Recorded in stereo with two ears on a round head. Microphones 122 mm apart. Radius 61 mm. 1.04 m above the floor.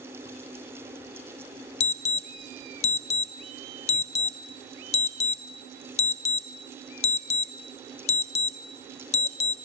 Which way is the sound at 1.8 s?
50° left (ahead or behind).